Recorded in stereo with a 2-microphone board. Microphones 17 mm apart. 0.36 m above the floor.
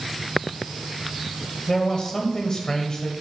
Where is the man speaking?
40° left (ahead or behind), 1.2 m.